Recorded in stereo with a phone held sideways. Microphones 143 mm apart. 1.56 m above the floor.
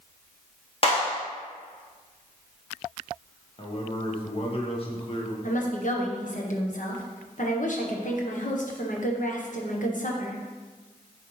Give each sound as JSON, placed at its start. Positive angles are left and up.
{"t": 0.8, "sound": "a clap", "side_deg": 40, "distance_m": 1.7}
{"t": 3.6, "sound": "a man speaking", "side_deg": 40, "distance_m": 1.4}
{"t": 5.4, "sound": "a woman speaking", "side_deg": 60, "distance_m": 1.2}